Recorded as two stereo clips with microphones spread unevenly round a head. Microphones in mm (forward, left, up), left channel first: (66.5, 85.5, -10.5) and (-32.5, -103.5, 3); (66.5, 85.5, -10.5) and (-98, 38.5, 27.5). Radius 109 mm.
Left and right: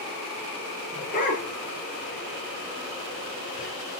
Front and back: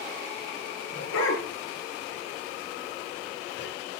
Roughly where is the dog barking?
Ahead.